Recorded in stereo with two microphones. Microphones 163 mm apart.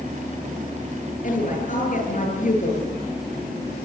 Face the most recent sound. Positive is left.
turn(degrees=55)  # may be behind; listen again after turning